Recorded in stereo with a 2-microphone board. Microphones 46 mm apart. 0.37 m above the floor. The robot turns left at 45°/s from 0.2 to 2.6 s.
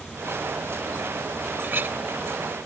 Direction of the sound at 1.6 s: 45° right (ahead or behind).